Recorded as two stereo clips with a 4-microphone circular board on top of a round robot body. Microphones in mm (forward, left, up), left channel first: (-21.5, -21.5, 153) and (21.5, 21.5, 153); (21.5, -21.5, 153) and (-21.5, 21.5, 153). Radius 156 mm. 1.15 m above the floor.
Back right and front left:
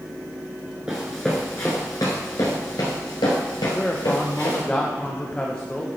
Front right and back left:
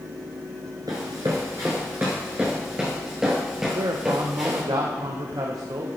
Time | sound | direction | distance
0.9 | running footsteps | 115° left | 1.1 m
3.8 | a man speaking | 150° left | 1.0 m